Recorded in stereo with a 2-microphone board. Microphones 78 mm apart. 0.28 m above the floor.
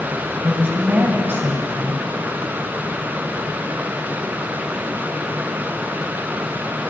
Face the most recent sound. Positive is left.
turn(degrees=-25)  # may be behind; listen again after turning